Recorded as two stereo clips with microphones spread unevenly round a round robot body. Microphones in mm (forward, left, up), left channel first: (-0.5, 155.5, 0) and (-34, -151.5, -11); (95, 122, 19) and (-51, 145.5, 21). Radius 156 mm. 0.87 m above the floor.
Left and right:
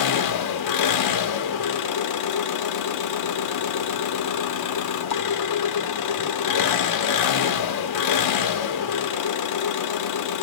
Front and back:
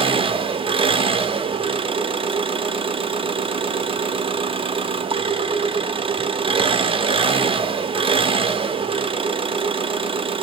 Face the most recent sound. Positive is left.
turn(degrees=115)